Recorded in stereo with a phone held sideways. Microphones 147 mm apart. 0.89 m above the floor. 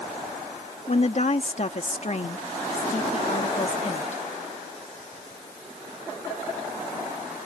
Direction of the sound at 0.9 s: 50° left (ahead or behind).